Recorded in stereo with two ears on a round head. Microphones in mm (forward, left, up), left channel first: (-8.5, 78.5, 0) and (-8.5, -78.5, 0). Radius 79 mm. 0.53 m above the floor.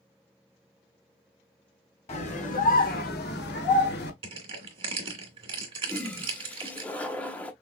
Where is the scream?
35° left (ahead or behind), 1.6 m; by 4.1 s 65° left (ahead or behind), 1.5 m.